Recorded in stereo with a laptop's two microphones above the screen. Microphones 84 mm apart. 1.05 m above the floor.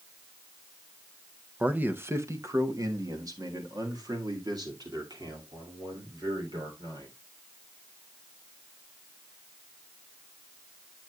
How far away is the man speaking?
About 0.6 m.